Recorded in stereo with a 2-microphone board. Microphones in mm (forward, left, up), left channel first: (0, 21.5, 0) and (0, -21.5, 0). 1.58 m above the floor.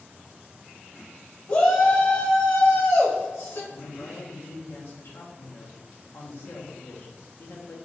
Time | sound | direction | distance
1.5 | a shout | 50° left (ahead or behind) | 1.0 m
3.7 | a woman speaking | 65° left (ahead or behind) | 1.0 m